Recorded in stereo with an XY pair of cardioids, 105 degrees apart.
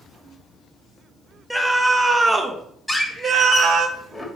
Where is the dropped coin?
I don't hear a dropped coin.